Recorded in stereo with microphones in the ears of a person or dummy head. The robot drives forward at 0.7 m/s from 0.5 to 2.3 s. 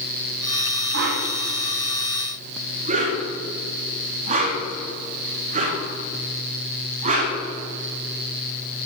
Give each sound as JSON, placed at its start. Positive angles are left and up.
{"t": 0.9, "sound": "a whoosh", "side_deg": -55, "distance_m": 1.0}